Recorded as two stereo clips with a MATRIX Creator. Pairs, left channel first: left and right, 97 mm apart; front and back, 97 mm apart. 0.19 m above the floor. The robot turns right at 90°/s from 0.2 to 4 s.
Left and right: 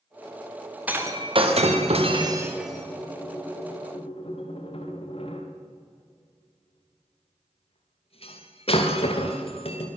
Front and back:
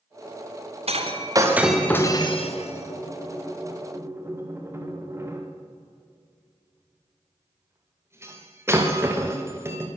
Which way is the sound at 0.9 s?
170° right.